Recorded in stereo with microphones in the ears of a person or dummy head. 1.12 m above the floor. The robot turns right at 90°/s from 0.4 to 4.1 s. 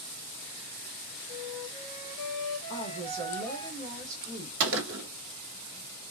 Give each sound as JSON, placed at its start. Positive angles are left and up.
{"t": 1.3, "sound": "a flute", "azimuth_deg": -20, "distance_m": 1.3}
{"t": 2.7, "sound": "a woman speaking", "azimuth_deg": 165, "distance_m": 1.4}
{"t": 4.6, "sound": "a gunshot", "side_deg": -70, "distance_m": 0.9}